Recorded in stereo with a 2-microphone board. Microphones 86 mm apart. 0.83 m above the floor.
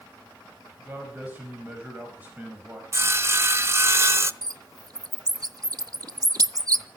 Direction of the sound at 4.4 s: 45° right (ahead or behind).